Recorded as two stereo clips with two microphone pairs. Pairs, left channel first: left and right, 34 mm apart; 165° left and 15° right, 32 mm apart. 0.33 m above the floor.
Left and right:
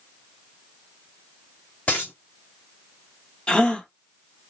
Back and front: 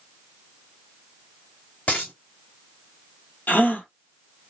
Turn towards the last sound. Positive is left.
turn(degrees=150)